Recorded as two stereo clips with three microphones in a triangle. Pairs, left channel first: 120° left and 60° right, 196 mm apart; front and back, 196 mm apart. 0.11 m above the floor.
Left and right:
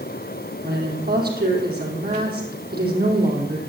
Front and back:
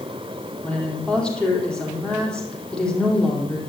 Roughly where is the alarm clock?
I don't hear an alarm clock.